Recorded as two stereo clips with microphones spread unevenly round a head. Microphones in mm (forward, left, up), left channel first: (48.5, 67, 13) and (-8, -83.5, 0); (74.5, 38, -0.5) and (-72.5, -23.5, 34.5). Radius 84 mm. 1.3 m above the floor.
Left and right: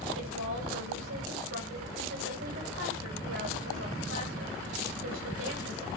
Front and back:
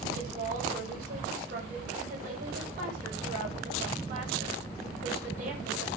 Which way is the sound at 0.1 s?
110° right.